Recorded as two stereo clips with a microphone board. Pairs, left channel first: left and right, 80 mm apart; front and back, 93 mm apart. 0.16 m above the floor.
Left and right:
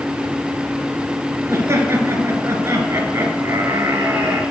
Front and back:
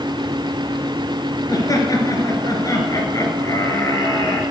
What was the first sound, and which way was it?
Laughter, 40° right.